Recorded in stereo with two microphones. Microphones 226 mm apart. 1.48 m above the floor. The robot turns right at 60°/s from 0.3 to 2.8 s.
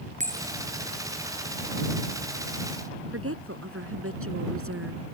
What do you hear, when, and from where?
0.2 s a bell: 35° right (ahead or behind); by 0.7 s 10° right (ahead or behind)
3.1 s a woman speaking: 75° right (ahead or behind)